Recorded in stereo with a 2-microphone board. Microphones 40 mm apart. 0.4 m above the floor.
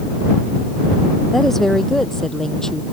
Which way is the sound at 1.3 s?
5° left (ahead or behind).